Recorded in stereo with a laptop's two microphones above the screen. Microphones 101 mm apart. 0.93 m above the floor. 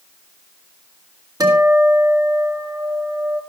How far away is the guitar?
About 2 m.